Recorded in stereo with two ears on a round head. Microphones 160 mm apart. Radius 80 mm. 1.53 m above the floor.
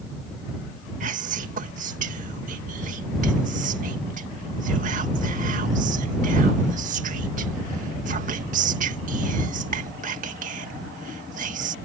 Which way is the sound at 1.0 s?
45° right (ahead or behind).